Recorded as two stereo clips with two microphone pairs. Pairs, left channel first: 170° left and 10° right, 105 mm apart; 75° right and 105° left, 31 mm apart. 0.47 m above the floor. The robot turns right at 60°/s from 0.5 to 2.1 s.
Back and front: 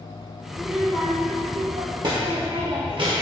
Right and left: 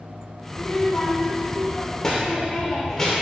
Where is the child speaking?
100° right, 0.7 m; by 3.2 s 5° right, 0.7 m.